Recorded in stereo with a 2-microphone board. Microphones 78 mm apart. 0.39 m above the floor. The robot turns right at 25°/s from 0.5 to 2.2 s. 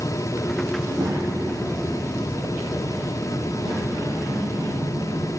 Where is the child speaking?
110° right, 7 m; by 5.3 s 75° right, 7 m.